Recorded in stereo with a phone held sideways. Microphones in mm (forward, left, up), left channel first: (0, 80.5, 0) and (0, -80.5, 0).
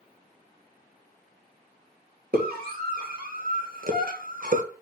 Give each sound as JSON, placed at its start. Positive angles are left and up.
{"t": 2.3, "sound": "a scream", "side_deg": -65, "distance_m": 2.5}